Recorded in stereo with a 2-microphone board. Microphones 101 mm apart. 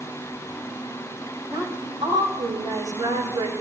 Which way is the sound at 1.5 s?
45° right (ahead or behind).